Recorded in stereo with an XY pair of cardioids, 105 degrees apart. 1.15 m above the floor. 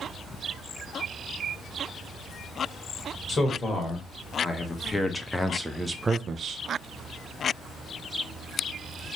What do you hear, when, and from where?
3.3 s a man speaking: 35° left, 1.8 m; by 6.6 s 60° right, 0.5 m